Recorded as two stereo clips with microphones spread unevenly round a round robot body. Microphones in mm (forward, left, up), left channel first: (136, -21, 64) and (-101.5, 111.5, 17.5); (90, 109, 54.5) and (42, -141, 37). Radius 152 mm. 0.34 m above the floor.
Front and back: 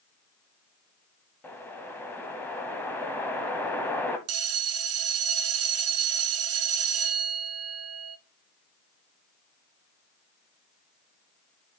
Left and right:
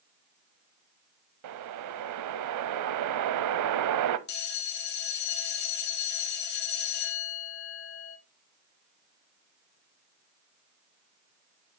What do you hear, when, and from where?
1.4 s a whoosh: 115° right, 0.6 m
4.3 s a bell: 130° left, 1.0 m